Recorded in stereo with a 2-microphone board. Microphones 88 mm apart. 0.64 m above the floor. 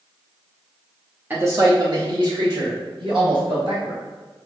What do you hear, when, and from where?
1.3 s a man speaking: 20° right (ahead or behind), 0.9 m; by 4.0 s 75° right (ahead or behind), 4 m